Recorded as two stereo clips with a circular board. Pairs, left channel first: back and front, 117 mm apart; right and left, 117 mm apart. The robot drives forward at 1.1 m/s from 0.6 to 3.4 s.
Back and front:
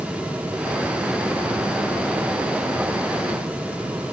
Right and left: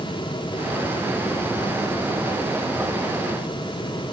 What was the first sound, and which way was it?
Only background noise.